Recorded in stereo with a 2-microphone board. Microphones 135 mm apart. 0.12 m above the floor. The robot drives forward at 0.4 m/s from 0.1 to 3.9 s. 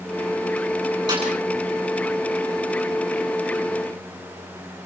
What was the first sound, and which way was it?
A snare drum, 35° right (ahead or behind).